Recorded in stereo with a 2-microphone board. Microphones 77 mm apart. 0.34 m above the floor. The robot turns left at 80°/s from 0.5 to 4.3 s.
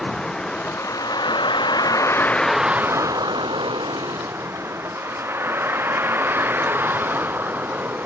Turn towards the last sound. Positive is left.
turn(degrees=-25)  # may be behind; listen again after turning